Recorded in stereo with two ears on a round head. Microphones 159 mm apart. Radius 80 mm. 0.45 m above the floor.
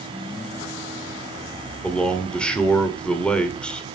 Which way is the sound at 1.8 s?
5° left (ahead or behind).